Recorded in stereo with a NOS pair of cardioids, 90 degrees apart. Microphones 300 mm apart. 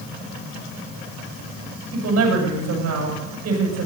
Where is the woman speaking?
70° right, 8 m.